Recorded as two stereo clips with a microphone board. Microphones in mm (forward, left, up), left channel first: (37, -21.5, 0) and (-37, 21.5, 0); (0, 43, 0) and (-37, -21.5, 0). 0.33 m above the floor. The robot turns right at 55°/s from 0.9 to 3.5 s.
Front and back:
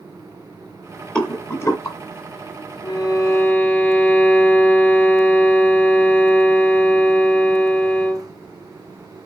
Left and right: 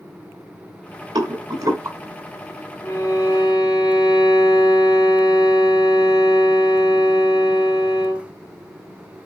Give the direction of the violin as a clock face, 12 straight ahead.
12 o'clock.